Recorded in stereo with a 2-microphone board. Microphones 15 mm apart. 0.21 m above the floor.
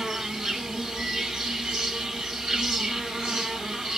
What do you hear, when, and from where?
0.0 s an insect: 75° right (ahead or behind), 1.6 m